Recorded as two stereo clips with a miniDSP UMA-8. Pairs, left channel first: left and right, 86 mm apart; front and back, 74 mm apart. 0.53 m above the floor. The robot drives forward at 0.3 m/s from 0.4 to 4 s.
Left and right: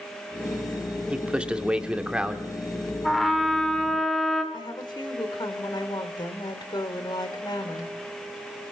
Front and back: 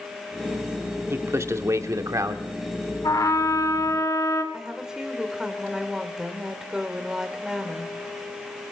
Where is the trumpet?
Straight ahead, 2.0 m.